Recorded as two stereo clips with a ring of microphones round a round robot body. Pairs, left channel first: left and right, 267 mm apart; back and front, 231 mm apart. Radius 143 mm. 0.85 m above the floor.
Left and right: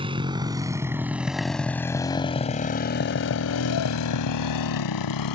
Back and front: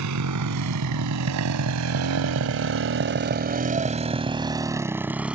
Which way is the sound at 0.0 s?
20° right.